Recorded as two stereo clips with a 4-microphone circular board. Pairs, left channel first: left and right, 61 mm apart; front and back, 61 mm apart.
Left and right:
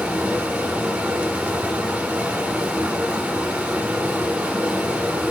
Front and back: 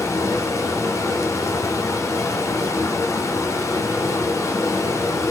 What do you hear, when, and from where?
0.0 s running water: 25° right, 1.0 m